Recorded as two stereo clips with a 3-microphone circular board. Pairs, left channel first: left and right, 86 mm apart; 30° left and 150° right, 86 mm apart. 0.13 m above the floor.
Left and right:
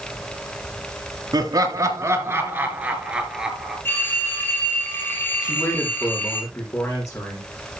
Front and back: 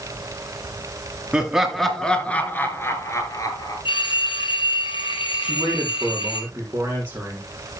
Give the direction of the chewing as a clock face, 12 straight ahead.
I don't hear chewing.